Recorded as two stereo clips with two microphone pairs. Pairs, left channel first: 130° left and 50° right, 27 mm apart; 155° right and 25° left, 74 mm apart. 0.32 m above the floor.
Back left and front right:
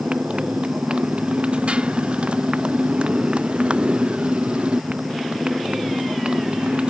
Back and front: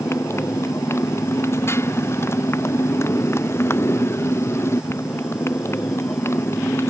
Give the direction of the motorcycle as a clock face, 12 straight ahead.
3 o'clock.